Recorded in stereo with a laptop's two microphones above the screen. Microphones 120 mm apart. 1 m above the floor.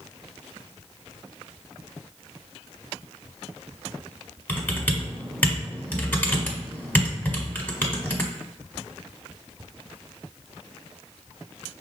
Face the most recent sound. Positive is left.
turn(degrees=15)  # may be behind; listen again after turning